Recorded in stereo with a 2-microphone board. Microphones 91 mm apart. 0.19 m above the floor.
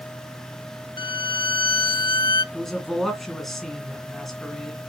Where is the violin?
55° left (ahead or behind), 0.5 m.